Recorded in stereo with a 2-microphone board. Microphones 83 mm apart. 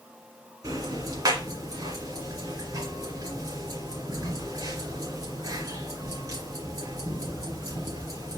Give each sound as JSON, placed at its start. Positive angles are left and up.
{"t": 0.6, "sound": "ticking", "side_deg": -45, "distance_m": 2.5}